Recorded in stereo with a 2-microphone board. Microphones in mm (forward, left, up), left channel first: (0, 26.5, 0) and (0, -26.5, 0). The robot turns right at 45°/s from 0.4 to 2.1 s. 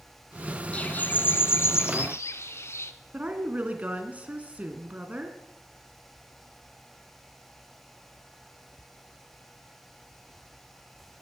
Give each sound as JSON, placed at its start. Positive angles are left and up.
{"t": 0.7, "sound": "a bird", "azimuth_deg": 30, "distance_m": 0.9}
{"t": 3.1, "sound": "a woman speaking", "side_deg": -30, "distance_m": 2.5}